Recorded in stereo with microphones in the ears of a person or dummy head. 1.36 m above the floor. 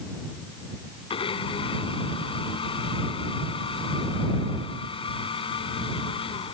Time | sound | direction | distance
1.1 | a blender | 30° left (ahead or behind) | ?